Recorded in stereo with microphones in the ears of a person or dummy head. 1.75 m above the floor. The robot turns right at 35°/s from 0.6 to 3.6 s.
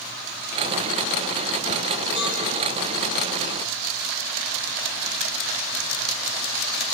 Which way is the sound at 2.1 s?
30° right (ahead or behind).